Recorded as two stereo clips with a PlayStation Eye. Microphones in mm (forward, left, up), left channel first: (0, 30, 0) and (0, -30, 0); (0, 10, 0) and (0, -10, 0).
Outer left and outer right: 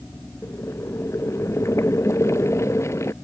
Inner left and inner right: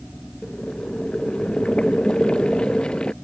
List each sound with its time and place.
0.4 s boiling: 45° left (ahead or behind)